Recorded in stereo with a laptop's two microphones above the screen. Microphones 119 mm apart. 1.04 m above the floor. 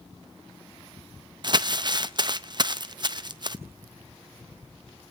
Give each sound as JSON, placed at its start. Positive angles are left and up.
{"t": 1.4, "sound": "crumpling", "side_deg": -40, "distance_m": 0.6}